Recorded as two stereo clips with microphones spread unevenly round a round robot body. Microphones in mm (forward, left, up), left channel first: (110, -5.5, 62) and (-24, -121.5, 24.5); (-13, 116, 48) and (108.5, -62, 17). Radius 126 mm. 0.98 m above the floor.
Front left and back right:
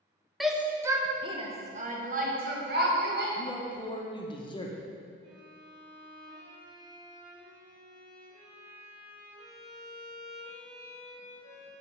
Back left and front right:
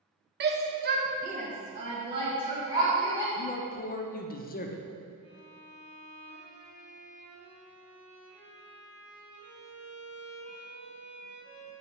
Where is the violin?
70° right, 2.5 m.